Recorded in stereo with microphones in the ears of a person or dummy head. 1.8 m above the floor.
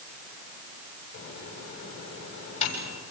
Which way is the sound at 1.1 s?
35° left (ahead or behind).